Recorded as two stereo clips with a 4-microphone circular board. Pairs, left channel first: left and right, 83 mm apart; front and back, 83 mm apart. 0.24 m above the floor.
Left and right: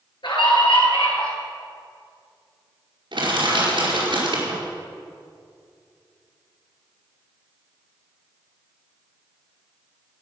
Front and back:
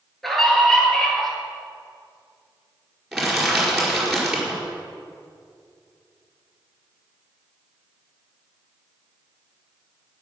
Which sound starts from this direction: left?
A scream, at 0.2 s.